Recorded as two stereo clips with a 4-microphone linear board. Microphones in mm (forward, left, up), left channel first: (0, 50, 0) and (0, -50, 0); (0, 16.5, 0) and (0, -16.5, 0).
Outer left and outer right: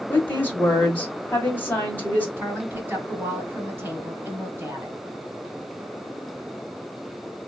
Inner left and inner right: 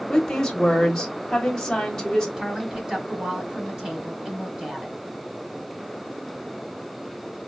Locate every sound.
0.1 s a woman speaking: 20° left (ahead or behind), 1.3 m
2.4 s a woman speaking: 20° right (ahead or behind), 1.2 m